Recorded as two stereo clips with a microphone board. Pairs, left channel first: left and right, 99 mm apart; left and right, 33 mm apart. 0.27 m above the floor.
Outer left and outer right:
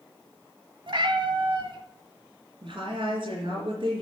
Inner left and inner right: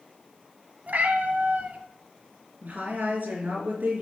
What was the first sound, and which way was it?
A cat meowing, 55° right (ahead or behind).